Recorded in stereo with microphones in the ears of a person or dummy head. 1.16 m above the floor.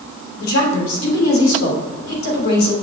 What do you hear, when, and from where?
0.4 s a woman speaking: 70° left (ahead or behind), 3 m